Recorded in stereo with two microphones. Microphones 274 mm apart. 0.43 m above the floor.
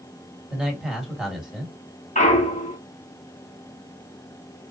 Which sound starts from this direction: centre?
A man speaking, at 0.5 s.